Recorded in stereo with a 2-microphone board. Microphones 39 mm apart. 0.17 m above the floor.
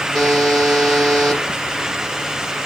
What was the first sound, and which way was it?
A buzzer, 10° left (ahead or behind).